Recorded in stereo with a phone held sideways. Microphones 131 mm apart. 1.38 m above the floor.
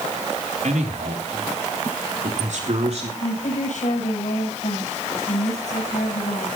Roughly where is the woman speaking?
Left.